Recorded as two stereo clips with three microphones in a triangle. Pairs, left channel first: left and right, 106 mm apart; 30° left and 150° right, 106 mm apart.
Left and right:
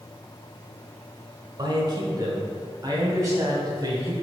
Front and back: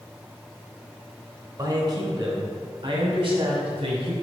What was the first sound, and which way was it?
A man speaking, 115° right.